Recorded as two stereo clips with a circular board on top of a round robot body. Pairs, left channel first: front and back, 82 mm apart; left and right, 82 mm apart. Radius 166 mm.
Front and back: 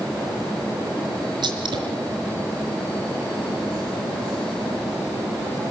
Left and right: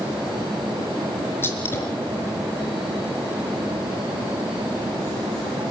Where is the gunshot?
155° left, 4.5 m.